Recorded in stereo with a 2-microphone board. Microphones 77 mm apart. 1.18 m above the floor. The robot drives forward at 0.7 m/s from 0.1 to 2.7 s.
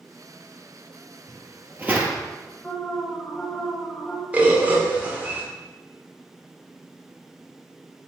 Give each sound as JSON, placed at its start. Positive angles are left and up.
{"t": 1.3, "sound": "footsteps", "side_deg": -20, "distance_m": 1.7}
{"t": 2.6, "sound": "an alarm", "side_deg": 15, "distance_m": 1.5}
{"t": 4.3, "sound": "a bird", "side_deg": -20, "distance_m": 1.4}